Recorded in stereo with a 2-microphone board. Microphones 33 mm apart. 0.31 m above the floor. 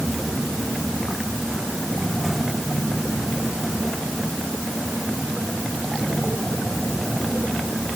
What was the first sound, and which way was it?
Only background noise.